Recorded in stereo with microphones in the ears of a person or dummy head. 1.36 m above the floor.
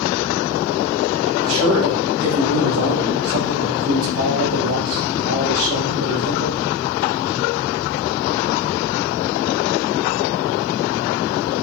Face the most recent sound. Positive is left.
turn(degrees=-75)  # may be behind; listen again after turning